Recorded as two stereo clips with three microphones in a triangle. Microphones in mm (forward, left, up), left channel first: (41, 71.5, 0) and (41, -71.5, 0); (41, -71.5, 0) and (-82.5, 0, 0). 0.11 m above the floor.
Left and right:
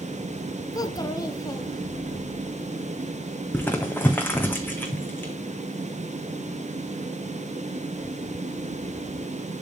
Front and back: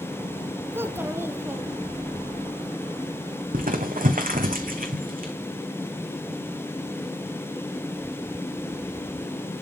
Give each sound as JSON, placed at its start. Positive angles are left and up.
{"t": 0.7, "sound": "a child speaking", "azimuth_deg": 100, "distance_m": 0.7}
{"t": 3.5, "sound": "crumpling", "azimuth_deg": 165, "distance_m": 1.6}